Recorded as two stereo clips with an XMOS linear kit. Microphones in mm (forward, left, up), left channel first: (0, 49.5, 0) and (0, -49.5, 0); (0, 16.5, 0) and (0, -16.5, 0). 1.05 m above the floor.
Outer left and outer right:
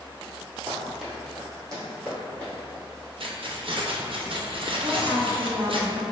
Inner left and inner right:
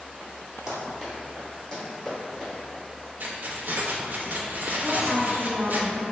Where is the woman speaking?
55° right (ahead or behind), 0.8 m.